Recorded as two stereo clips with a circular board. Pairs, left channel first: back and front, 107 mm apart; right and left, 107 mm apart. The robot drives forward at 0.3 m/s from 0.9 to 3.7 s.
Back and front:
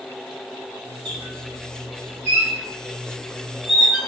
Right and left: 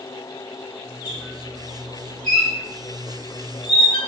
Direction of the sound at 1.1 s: 45° right.